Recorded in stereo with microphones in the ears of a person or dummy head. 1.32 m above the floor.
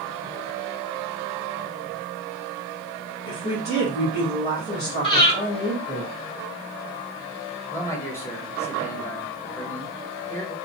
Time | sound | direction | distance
3.2 | a woman speaking | 55° left (ahead or behind) | 1.5 m
5.0 | breathing | 30° left (ahead or behind) | 1.8 m
7.7 | a man speaking | 15° left (ahead or behind) | 1.5 m